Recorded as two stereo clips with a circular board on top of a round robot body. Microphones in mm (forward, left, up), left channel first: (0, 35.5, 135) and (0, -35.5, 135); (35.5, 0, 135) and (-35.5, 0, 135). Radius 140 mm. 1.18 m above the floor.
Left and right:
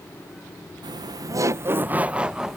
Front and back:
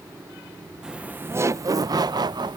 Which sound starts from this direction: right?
Laughter, at 0.8 s.